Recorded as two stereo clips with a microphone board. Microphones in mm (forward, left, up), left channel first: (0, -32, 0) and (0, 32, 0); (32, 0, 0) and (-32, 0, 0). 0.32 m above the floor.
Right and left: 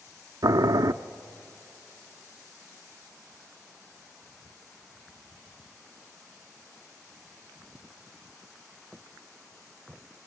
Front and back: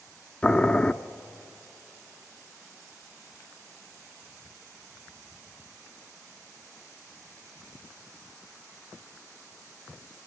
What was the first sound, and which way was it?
Boiling, 75° left.